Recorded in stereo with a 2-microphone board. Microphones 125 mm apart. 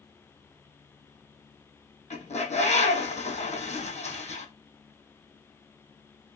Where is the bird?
65° left (ahead or behind), 1.3 m.